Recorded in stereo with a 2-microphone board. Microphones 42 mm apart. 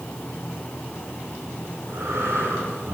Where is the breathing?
85° right, 10 m.